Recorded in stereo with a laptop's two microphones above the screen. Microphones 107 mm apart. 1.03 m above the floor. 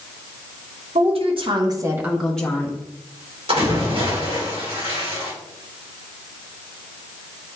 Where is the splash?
65° right (ahead or behind), 3.5 m.